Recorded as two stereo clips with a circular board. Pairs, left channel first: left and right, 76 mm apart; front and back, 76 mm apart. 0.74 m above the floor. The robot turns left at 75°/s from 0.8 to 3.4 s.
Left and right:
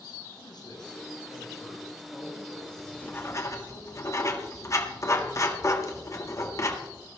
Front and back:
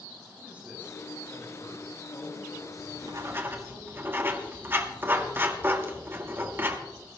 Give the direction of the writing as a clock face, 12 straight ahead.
6 o'clock.